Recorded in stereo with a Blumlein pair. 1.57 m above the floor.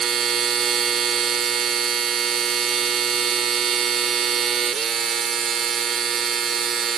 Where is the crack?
I don't hear a crack.